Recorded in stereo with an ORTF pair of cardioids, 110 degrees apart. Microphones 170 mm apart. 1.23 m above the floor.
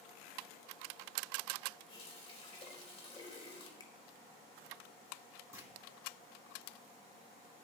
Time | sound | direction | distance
1.9 | a running tap | 35° left | 3.5 m
3.8 | a finger snap | 20° left | 1.2 m
5.5 | a clunk | 15° right | 2 m